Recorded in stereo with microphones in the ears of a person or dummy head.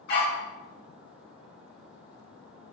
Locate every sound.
0.1 s a dog barking: 60° left (ahead or behind), 1.5 m